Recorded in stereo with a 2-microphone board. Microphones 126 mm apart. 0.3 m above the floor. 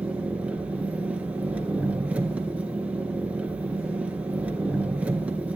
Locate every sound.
0.0 s an engine running: 10° right (ahead or behind), 2.5 m